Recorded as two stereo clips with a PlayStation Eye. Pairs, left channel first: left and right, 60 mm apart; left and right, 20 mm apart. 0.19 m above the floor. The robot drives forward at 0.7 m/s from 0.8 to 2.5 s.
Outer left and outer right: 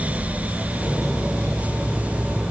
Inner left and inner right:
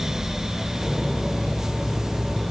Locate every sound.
Only background noise.